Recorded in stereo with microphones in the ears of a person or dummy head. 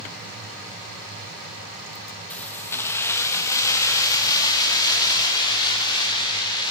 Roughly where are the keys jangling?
Centre.